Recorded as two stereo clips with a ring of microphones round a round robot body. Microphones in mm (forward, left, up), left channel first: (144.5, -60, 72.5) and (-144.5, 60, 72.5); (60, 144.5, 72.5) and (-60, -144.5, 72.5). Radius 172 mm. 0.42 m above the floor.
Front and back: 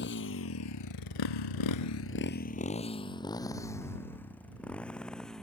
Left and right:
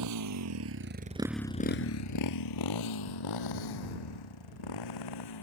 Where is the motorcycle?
80° right; by 5.4 s 65° left.